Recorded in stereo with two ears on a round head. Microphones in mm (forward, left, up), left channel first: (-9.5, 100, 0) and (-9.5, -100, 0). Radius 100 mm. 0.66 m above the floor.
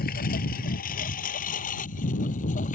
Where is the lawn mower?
45° left (ahead or behind); by 2.7 s 35° left (ahead or behind).